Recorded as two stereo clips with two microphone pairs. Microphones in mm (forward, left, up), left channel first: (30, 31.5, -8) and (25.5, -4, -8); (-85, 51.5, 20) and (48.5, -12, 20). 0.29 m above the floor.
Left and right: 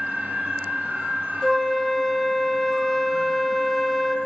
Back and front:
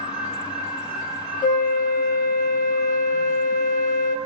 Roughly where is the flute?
Behind.